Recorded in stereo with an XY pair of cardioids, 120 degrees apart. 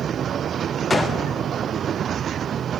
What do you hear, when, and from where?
0.9 s a gunshot: 15° left, 0.6 m